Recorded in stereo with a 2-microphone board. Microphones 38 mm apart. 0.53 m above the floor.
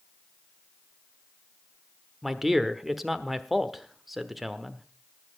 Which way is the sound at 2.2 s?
5° right (ahead or behind).